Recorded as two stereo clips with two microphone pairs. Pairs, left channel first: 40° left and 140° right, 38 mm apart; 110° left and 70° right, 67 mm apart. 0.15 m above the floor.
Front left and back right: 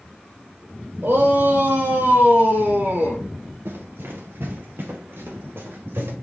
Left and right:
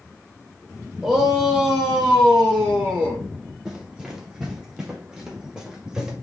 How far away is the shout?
About 5.5 m.